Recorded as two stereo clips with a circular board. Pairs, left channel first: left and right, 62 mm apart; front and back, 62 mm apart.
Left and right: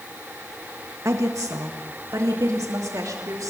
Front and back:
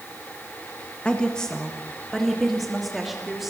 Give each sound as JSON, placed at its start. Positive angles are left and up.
{"t": 1.1, "sound": "a woman speaking", "azimuth_deg": -70, "distance_m": 1.3}